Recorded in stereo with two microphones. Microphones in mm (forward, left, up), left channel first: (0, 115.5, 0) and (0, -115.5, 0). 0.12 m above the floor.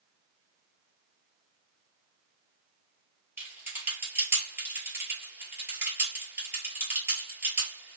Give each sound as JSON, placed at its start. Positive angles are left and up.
{"t": 3.4, "sound": "typing on a keyboard", "side_deg": -10, "distance_m": 1.8}